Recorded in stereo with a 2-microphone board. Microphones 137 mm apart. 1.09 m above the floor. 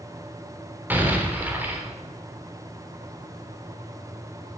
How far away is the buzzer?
No buzzer in this recording.